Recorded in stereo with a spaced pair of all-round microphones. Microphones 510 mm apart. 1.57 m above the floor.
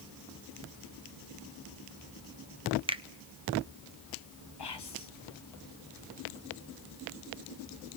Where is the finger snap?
10° right (ahead or behind), 0.7 m.